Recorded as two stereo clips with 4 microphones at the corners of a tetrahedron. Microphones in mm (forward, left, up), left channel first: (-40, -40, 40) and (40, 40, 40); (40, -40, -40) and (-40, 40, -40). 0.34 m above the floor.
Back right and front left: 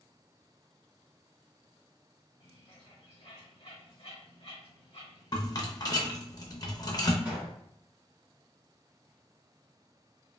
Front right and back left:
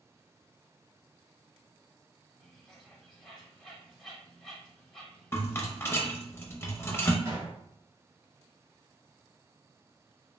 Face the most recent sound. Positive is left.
turn(degrees=115)